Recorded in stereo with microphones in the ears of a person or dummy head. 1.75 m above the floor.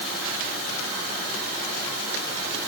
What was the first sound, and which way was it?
Only background noise.